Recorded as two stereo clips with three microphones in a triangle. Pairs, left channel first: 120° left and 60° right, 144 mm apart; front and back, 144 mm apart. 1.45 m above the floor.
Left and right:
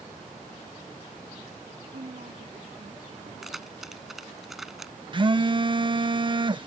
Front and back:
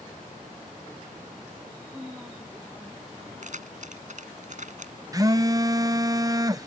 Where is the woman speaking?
100° right; by 3.3 s 105° right.